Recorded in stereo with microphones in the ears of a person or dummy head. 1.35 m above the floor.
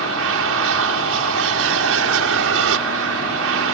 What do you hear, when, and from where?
0.0 s an aircraft: 70° right (ahead or behind)